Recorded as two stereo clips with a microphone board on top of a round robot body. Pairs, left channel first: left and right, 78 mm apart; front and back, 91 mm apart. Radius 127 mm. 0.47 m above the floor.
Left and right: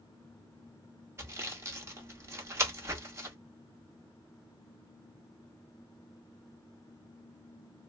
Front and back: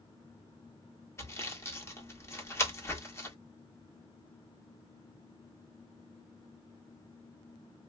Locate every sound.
1.2 s sawing: 50° right, 1.6 m